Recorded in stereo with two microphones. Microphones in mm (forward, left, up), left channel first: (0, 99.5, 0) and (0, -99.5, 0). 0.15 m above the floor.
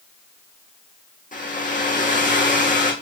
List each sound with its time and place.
1.3 s a hair dryer: 40° left (ahead or behind), 2.5 m